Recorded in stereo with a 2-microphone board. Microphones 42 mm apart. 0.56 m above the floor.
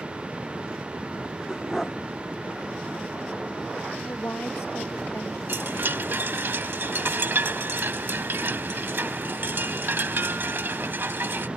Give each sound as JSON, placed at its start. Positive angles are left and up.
{"t": 1.5, "sound": "a dog barking", "side_deg": 5}
{"t": 4.0, "sound": "a woman speaking", "side_deg": 85}
{"t": 5.5, "sound": "a chime", "side_deg": -60}